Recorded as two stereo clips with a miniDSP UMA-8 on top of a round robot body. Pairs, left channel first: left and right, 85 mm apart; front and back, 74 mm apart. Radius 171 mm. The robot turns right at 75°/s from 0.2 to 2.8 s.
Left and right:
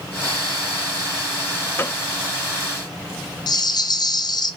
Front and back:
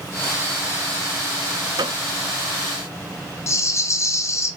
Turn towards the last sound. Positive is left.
turn(degrees=50)